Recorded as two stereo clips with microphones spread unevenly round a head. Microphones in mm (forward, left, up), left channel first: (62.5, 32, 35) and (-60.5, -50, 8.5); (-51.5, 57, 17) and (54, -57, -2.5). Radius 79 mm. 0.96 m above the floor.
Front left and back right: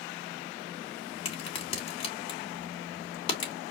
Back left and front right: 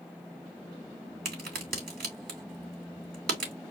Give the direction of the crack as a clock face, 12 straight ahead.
1 o'clock.